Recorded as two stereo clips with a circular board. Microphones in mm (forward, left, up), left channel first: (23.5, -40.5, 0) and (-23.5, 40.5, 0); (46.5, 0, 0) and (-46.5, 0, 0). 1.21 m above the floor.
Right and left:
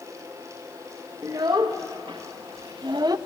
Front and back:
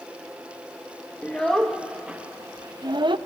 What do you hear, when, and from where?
1.2 s a child speaking: 75° left, 0.9 m; by 3.2 s 160° left, 0.7 m